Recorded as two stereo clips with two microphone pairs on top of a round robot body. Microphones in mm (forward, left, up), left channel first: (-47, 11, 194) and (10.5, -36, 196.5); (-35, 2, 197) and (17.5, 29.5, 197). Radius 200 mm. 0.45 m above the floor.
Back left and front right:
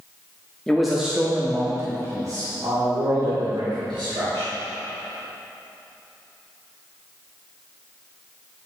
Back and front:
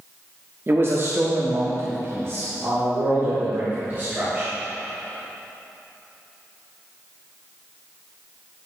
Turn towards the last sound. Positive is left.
turn(degrees=-30)